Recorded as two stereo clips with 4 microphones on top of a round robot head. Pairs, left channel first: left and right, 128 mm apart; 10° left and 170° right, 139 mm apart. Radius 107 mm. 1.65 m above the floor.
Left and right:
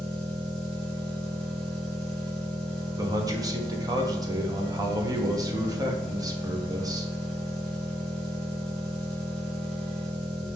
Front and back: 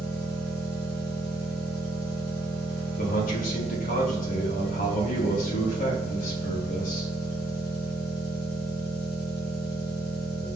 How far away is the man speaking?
About 1.2 m.